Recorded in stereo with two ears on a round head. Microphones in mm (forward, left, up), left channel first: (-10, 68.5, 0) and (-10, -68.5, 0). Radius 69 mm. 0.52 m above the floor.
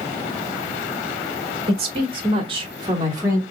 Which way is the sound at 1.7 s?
40° right (ahead or behind).